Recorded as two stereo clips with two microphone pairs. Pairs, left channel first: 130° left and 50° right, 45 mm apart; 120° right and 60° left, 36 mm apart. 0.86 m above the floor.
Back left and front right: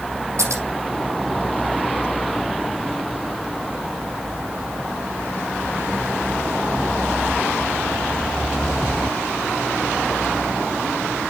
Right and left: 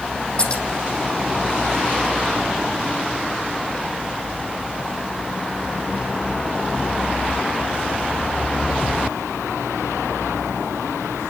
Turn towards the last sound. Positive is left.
turn(degrees=-50)